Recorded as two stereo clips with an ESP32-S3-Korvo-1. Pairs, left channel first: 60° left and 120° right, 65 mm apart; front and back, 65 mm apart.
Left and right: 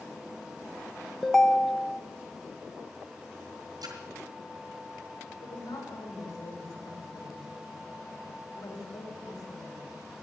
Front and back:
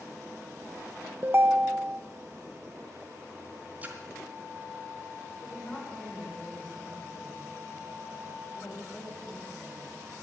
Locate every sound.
1.2 s a ringtone: 140° left, 0.5 m
3.8 s a splash: 115° right, 3 m
5.4 s a woman speaking: 70° left, 5 m